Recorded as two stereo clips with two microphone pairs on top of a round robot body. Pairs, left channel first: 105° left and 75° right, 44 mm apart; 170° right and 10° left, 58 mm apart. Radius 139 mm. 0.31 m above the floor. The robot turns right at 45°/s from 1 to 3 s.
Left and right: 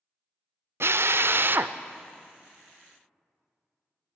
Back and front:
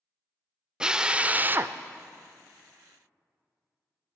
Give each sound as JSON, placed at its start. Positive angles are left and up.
{"t": 0.8, "sound": "a drill", "azimuth_deg": -65, "distance_m": 0.5}